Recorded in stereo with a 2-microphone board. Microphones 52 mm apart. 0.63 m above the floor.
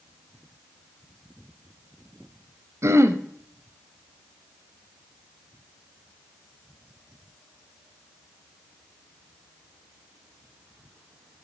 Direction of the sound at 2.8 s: 60° right (ahead or behind).